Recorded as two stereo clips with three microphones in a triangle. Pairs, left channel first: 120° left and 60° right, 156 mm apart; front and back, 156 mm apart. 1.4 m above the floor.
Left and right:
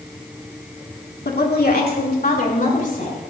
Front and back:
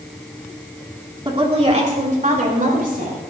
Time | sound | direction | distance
1.2 | a woman speaking | 120° left | 2.5 m